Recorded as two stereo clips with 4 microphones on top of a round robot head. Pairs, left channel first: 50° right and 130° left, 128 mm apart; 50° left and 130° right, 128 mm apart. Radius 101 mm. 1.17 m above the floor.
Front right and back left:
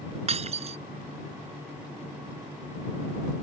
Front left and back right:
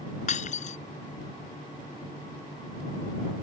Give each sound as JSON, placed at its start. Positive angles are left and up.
{"t": 0.3, "sound": "breaking glass", "azimuth_deg": 85}